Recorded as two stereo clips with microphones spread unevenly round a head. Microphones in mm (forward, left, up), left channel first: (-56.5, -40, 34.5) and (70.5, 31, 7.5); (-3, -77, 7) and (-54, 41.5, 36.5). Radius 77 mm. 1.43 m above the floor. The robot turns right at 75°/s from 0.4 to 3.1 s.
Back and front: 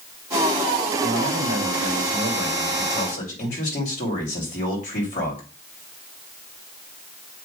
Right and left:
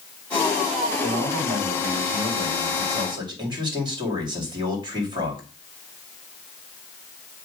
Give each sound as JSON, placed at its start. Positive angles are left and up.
{"t": 1.0, "sound": "a man speaking", "azimuth_deg": 10, "distance_m": 2.5}